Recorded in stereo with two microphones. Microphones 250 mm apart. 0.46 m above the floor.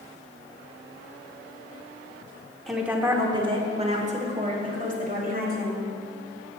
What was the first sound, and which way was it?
A woman speaking, centre (ahead or behind).